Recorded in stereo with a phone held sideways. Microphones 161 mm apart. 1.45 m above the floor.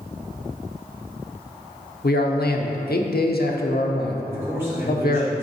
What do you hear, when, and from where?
2.0 s a man speaking: 80° left, 0.8 m
4.3 s a man speaking: 15° right (ahead or behind), 2.5 m